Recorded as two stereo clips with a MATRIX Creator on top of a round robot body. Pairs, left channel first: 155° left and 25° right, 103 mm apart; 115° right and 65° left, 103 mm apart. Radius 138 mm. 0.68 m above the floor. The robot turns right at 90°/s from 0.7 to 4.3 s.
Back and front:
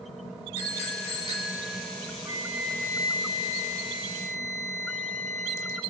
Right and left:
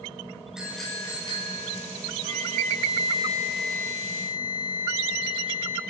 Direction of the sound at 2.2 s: 35° left.